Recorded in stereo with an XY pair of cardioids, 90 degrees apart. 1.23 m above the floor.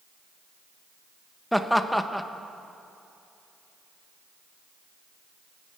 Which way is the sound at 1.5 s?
5° left.